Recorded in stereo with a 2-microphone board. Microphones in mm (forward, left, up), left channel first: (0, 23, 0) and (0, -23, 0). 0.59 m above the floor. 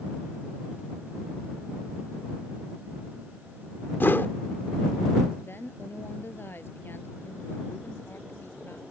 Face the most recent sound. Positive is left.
turn(degrees=55)  # may be behind; listen again after turning